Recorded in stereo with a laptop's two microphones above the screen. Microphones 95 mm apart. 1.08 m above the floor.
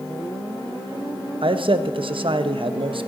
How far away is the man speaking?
About 0.8 m.